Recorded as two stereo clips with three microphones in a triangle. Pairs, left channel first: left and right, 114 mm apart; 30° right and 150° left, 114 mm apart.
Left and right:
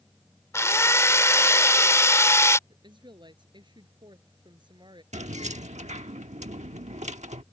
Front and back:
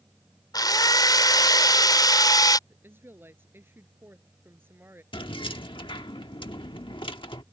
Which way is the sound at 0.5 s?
25° left.